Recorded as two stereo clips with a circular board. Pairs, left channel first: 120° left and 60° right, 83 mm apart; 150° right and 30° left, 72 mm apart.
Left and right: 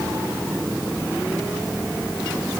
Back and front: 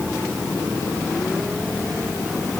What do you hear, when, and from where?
Only background noise.